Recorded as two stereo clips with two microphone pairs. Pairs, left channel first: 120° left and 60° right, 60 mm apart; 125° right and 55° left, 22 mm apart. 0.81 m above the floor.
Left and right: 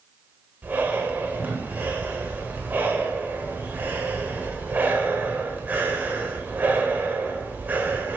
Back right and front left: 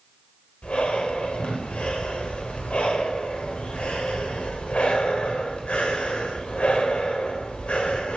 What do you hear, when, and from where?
0.6 s breathing: 115° right, 1.1 m